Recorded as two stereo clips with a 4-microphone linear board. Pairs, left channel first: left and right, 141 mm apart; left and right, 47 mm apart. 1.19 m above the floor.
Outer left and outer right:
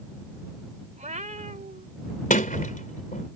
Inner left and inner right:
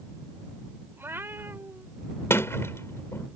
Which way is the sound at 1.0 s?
60° right (ahead or behind).